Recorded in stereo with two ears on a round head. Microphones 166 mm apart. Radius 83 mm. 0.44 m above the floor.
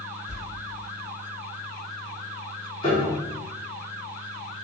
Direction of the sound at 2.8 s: 30° left (ahead or behind).